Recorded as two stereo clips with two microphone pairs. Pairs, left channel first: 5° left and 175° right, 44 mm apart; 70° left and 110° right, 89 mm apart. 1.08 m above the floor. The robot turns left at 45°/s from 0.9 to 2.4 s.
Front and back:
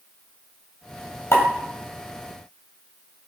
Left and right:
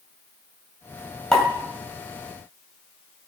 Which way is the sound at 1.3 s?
10° right.